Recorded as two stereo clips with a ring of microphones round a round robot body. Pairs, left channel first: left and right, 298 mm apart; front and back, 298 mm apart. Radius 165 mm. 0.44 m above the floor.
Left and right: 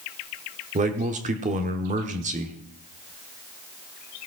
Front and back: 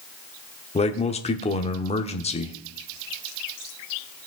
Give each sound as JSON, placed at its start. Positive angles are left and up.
{"t": 0.8, "sound": "a man speaking", "azimuth_deg": -50, "distance_m": 1.1}